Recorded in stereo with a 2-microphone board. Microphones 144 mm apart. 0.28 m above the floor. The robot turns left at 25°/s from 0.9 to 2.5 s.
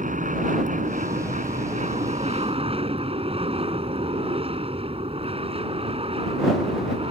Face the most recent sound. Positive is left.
turn(degrees=-130)